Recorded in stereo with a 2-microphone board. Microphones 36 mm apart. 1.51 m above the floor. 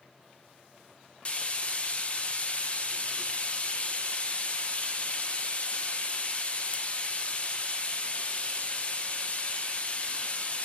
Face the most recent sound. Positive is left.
turn(degrees=35)  # may be behind; listen again after turning